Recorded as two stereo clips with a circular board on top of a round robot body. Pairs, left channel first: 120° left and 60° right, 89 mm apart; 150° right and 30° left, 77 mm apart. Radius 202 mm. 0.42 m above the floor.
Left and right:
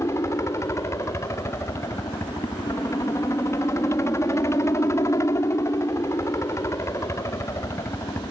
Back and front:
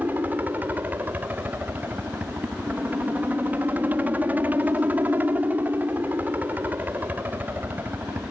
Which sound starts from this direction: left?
A helicopter, at 0.0 s.